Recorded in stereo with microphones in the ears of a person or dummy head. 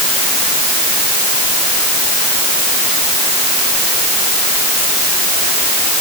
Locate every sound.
Only background noise.